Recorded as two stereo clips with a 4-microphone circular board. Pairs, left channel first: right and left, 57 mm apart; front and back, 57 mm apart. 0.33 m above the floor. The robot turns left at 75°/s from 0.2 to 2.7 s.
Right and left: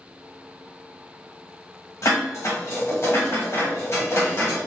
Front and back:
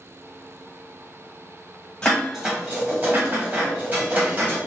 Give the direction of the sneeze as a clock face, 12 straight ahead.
I don't hear a sneeze.